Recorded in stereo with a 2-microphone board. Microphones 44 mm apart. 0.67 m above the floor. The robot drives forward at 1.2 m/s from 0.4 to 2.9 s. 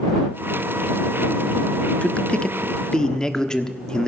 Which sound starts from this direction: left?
A man speaking, at 2.0 s.